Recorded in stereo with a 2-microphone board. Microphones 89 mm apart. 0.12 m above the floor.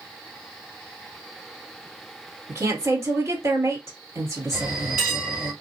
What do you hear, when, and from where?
2.5 s a woman speaking: 30° right (ahead or behind), 2 m
4.5 s a bell: 10° right (ahead or behind), 3 m